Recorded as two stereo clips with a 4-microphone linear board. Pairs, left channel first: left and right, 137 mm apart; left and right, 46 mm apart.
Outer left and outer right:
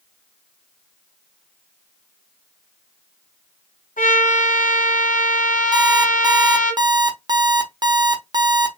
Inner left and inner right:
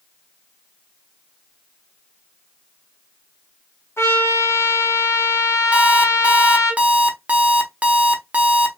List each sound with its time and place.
4.0 s a trumpet: 90° left, 1.7 m
5.7 s an alarm clock: 30° right (ahead or behind), 0.9 m